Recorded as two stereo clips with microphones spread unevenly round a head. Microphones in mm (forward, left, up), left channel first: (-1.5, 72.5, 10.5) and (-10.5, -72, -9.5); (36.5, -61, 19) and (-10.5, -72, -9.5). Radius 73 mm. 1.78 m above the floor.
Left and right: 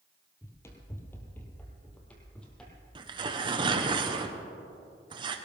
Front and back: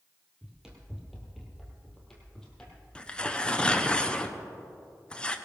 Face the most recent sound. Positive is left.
turn(degrees=-30)